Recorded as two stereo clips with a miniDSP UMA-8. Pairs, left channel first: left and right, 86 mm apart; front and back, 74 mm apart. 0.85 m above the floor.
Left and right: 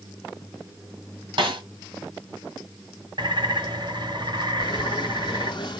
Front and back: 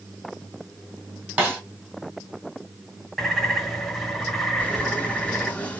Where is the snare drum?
115° right, 1.9 m.